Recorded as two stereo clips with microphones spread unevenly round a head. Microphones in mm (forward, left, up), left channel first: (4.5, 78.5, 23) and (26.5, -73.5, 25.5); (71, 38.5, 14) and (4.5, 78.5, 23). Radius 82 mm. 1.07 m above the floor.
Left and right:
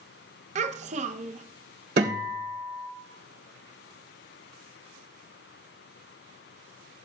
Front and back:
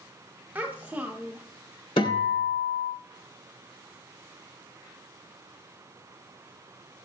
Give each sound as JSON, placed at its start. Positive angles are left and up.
{"t": 0.6, "sound": "a child speaking", "azimuth_deg": -130, "distance_m": 0.6}
{"t": 2.0, "sound": "a guitar", "azimuth_deg": -50, "distance_m": 3.0}